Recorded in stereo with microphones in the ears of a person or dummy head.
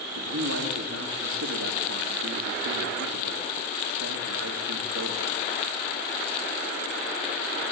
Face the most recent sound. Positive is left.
turn(degrees=-75)  # may be behind; listen again after turning